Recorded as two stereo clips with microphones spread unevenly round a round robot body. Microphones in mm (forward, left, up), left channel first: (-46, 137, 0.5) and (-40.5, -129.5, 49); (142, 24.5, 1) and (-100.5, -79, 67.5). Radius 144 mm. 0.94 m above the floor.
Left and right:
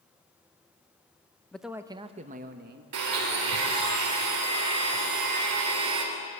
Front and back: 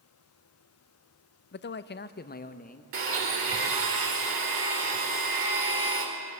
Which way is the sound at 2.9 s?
115° right.